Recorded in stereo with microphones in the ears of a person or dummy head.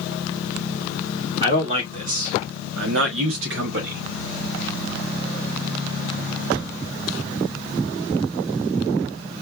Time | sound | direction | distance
1.4 | a man speaking | 30° right (ahead or behind) | 2.5 m